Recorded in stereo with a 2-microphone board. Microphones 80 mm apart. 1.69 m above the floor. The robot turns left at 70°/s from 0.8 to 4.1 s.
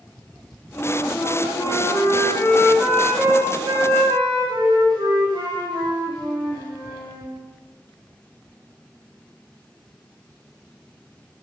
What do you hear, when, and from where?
0.8 s a flute: 145° left, 2 m; by 7.3 s 90° right, 2 m